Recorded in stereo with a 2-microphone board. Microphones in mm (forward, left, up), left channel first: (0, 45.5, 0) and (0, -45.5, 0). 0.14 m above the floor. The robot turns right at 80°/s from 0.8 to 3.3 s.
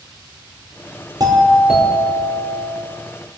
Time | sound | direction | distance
1.2 | a doorbell | 50° right | 5 m